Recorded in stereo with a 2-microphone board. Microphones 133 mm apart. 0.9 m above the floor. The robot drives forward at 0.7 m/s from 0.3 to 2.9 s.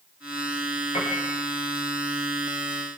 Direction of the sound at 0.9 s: 55° left (ahead or behind).